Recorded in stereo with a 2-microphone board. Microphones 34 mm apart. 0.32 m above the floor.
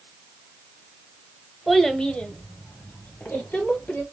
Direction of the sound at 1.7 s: Centre (ahead or behind).